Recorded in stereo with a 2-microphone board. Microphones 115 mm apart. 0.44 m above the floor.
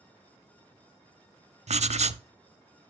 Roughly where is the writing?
Right.